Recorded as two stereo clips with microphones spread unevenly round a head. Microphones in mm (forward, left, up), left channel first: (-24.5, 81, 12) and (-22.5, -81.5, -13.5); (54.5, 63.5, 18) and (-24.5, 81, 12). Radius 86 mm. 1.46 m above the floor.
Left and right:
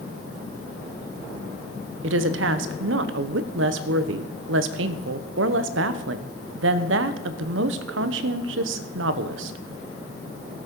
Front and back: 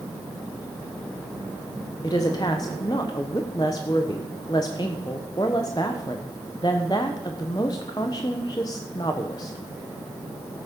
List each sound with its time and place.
2.0 s a woman speaking: 80° right, 0.8 m